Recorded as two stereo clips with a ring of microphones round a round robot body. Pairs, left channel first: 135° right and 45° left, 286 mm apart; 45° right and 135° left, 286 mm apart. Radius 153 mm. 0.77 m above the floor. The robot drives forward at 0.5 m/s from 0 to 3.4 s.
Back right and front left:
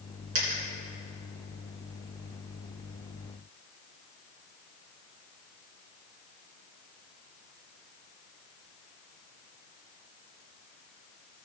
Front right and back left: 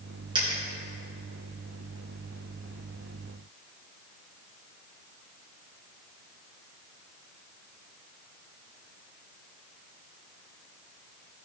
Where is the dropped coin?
60° left, 3 m; by 0.6 s 65° left, 3 m.